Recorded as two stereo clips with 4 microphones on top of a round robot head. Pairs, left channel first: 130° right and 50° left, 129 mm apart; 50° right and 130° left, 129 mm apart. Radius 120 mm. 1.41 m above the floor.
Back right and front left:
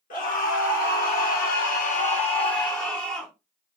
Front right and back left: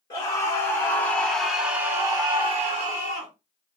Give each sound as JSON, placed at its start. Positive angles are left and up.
{"t": 0.1, "sound": "a scream", "azimuth_deg": -110, "distance_m": 1.6}